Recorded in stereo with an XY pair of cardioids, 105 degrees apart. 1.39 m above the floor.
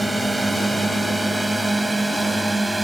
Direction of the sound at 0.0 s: 10° right.